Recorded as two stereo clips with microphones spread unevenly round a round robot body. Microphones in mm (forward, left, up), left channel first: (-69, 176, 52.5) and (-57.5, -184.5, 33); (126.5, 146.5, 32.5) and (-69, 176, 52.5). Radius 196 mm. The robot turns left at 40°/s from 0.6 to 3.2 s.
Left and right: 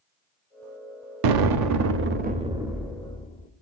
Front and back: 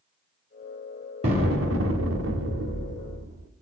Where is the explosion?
115° right, 0.8 m; by 3.5 s 165° left, 0.8 m.